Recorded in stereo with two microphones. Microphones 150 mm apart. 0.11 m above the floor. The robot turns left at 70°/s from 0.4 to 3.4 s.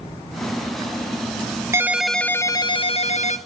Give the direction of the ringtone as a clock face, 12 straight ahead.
5 o'clock.